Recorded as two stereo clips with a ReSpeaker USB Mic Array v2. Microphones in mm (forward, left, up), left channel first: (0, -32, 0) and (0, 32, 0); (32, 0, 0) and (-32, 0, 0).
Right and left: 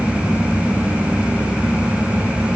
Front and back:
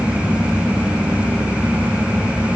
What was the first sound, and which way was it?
Only background noise.